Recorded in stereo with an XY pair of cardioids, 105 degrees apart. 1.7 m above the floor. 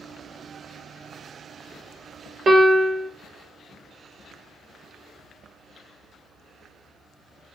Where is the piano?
50° right, 0.7 m.